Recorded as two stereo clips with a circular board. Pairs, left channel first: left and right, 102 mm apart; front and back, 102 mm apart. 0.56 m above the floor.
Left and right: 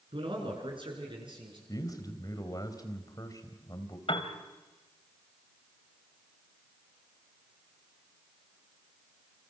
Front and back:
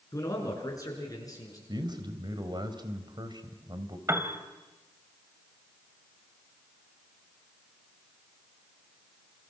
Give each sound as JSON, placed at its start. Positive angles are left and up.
{"t": 0.1, "sound": "a man speaking", "azimuth_deg": -60, "distance_m": 8.0}
{"t": 1.7, "sound": "a man speaking", "azimuth_deg": 140, "distance_m": 3.0}
{"t": 4.1, "sound": "a piano", "azimuth_deg": 120, "distance_m": 2.5}